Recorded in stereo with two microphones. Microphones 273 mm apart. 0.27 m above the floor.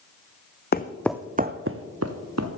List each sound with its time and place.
0.7 s footsteps: 40° left (ahead or behind), 0.7 m; by 2.5 s 70° right (ahead or behind), 1.6 m